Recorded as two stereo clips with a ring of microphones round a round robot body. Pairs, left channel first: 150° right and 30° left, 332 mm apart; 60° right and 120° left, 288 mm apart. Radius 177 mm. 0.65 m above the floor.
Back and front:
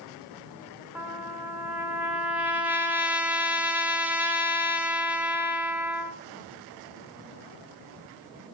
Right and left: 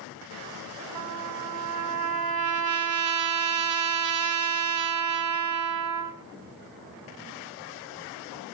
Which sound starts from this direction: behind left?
A trumpet, at 0.9 s.